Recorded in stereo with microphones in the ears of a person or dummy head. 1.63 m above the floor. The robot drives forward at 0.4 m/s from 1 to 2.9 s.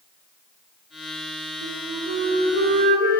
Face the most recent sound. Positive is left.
turn(degrees=-55)  # may be behind; listen again after turning